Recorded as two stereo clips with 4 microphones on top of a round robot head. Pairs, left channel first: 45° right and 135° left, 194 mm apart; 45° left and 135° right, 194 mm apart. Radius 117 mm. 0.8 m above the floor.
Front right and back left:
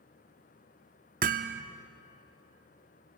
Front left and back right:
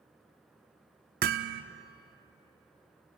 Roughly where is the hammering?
Behind.